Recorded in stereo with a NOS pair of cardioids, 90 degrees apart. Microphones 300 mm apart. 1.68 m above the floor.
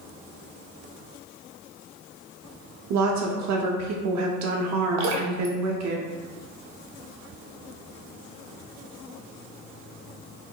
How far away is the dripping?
About 0.7 m.